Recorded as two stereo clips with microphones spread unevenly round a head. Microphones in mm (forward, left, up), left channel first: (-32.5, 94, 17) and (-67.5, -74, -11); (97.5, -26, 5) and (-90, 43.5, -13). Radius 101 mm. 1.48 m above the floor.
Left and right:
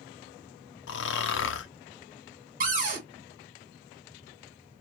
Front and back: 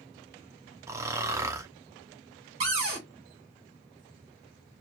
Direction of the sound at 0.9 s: 80° left.